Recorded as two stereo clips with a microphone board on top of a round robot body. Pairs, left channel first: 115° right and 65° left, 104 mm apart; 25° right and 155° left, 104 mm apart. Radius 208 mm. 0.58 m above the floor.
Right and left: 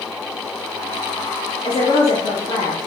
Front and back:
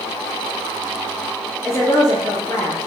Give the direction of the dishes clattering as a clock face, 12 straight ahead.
I don't hear dishes clattering.